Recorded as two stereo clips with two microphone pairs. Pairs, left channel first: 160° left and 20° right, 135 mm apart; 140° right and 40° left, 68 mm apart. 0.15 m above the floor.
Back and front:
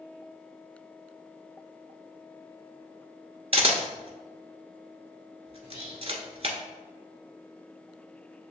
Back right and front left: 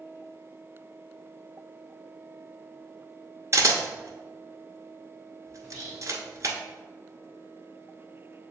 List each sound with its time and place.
3.5 s a camera shutter: 15° left, 0.9 m
5.6 s whispering: 85° right, 2 m